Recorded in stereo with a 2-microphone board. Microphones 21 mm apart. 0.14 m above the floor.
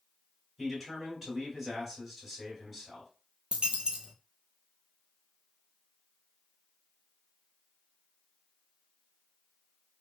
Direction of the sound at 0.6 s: Centre (ahead or behind).